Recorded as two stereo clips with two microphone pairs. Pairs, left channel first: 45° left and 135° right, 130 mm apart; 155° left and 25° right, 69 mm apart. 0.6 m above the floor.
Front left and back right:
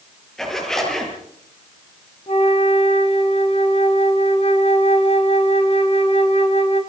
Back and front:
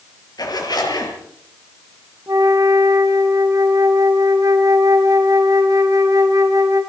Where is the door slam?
I don't hear a door slam.